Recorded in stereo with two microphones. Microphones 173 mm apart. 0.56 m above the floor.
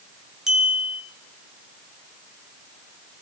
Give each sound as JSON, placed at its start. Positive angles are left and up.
{"t": 0.5, "sound": "a clink", "side_deg": -5, "distance_m": 5.0}